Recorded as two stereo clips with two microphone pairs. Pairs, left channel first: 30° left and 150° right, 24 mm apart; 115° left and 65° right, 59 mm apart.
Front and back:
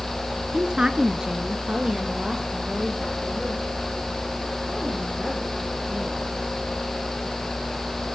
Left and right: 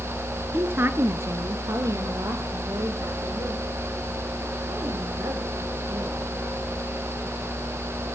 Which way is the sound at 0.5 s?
110° right.